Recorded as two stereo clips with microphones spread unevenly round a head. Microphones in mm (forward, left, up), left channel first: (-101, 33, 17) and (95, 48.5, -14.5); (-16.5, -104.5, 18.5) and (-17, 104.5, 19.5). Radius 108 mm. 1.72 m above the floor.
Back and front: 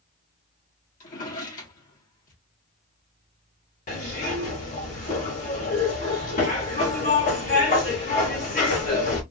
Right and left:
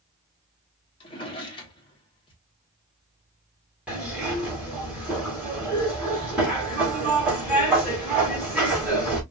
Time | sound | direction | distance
1.0 | a drawer | 150° right | 1.7 m
3.9 | a zipper | 170° left | 2.5 m